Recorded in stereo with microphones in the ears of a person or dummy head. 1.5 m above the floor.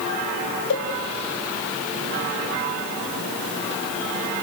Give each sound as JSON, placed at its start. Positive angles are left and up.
{"t": 0.7, "sound": "a cowbell", "side_deg": 70, "distance_m": 2.0}